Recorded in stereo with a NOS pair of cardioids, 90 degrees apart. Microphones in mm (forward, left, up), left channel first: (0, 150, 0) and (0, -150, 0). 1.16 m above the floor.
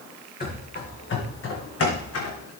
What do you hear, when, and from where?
0.4 s running footsteps: 35° left, 4 m; by 2.5 s 65° left, 3.5 m